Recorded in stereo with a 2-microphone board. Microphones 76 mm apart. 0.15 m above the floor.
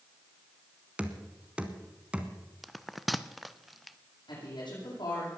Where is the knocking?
15° right (ahead or behind), 1.2 m.